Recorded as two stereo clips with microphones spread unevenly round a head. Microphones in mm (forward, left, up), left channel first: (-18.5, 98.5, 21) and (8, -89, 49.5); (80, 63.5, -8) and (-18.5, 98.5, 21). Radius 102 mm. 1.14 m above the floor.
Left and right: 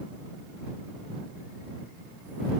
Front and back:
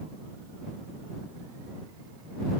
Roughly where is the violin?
No violin in this recording.